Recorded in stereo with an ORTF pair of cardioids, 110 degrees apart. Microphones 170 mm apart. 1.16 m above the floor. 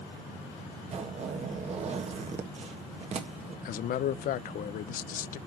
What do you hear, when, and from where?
0.9 s a zipper: 40° right, 1.6 m
3.6 s a man speaking: 60° left, 0.6 m